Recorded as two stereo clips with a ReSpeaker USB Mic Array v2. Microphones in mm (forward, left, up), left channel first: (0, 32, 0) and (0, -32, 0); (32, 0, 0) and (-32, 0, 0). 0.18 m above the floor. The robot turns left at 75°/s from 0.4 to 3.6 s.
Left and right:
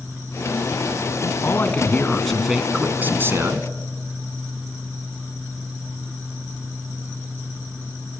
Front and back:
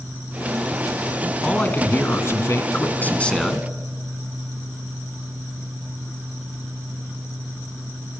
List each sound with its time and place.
1.4 s a man speaking: 75° left, 1.8 m; by 3.7 s 90° right, 1.8 m